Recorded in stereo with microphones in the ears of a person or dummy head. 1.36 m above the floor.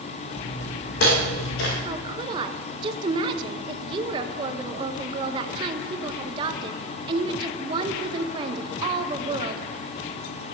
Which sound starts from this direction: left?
Footsteps, at 0.3 s.